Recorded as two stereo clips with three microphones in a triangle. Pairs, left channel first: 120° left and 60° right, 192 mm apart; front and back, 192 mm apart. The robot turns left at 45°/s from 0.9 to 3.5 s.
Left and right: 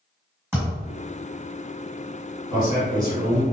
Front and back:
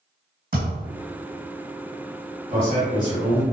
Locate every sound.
0.5 s a thud: 140° right, 1.7 m
2.5 s a man speaking: 145° left, 1.7 m; by 3.4 s 105° left, 1.7 m